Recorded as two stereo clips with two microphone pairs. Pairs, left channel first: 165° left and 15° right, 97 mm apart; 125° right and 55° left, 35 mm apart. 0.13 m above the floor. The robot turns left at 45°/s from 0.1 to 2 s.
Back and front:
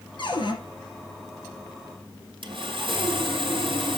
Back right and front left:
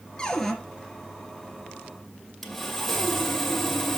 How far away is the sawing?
About 1.7 m.